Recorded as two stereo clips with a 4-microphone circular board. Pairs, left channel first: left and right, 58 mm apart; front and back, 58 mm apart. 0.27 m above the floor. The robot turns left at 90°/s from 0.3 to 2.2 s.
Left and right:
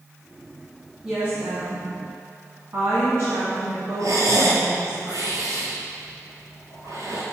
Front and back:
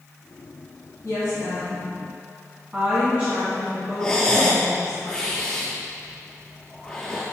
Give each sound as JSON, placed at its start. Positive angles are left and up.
{"t": 1.0, "sound": "a woman speaking", "azimuth_deg": -10, "distance_m": 1.9}
{"t": 4.0, "sound": "breathing", "azimuth_deg": -75, "distance_m": 1.3}